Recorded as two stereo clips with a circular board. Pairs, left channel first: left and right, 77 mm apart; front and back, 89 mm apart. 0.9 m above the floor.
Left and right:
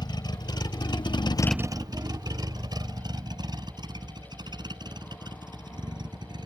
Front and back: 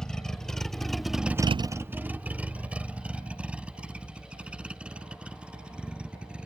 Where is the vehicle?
85° left; by 6.5 s 100° right.